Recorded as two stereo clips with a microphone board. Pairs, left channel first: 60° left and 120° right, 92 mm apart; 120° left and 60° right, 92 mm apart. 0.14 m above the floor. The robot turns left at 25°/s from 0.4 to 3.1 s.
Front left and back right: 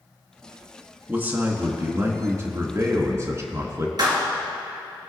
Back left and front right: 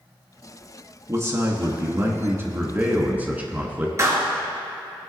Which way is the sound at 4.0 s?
105° right.